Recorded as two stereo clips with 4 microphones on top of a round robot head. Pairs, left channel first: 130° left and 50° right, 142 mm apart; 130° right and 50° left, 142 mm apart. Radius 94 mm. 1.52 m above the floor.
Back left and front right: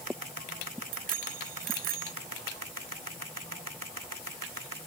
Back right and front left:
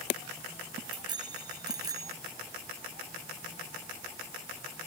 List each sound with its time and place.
0.9 s a bicycle bell: 15° right; by 2.1 s 20° right